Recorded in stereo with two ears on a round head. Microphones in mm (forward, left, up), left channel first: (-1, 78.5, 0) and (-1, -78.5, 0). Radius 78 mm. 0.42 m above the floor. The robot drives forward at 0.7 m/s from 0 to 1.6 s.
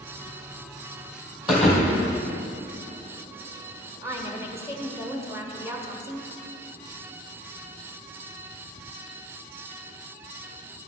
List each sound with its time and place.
1.5 s a thud: centre (ahead or behind), 2.5 m
4.0 s a woman speaking: 15° right (ahead or behind), 1.4 m